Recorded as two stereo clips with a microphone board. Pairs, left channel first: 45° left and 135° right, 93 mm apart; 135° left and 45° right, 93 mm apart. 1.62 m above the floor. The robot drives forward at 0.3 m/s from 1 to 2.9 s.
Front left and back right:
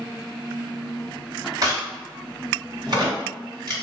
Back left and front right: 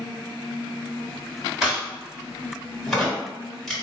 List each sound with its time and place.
1.6 s a crack: 125° right, 1.8 m; by 3.7 s 140° right, 2 m